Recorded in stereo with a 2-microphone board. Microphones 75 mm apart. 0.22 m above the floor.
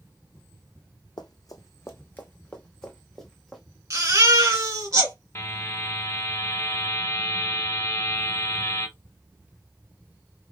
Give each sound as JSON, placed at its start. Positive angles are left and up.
{"t": 1.2, "sound": "running footsteps", "side_deg": 65, "distance_m": 0.7}
{"t": 3.9, "sound": "a baby crying", "side_deg": -45, "distance_m": 1.3}
{"t": 5.3, "sound": "a buzzer", "side_deg": 35, "distance_m": 0.9}